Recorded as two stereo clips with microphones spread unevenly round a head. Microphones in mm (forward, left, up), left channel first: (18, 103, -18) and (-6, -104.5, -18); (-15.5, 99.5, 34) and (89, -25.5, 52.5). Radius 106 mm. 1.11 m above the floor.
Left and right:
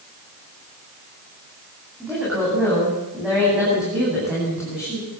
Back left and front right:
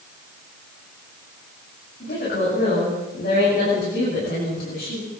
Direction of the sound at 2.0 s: Straight behind.